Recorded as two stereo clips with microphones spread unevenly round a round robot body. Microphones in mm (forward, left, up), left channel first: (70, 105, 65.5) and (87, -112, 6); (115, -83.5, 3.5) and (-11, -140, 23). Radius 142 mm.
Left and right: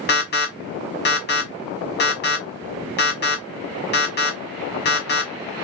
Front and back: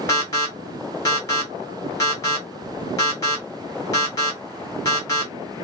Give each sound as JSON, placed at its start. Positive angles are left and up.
{"t": 0.1, "sound": "an alarm", "azimuth_deg": 65, "distance_m": 1.4}